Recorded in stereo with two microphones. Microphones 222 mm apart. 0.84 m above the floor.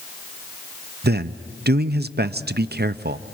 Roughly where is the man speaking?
Right.